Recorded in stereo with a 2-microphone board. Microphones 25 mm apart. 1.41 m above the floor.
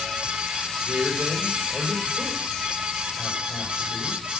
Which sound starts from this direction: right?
A man speaking, at 0.8 s.